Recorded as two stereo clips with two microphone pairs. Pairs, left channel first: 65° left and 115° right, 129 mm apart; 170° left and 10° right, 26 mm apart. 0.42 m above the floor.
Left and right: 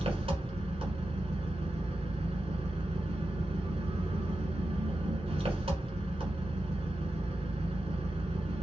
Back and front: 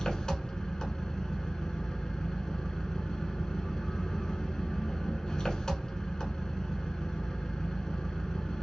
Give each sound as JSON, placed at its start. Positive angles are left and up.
{"t": 0.0, "sound": "an engine running", "azimuth_deg": -140, "distance_m": 1.2}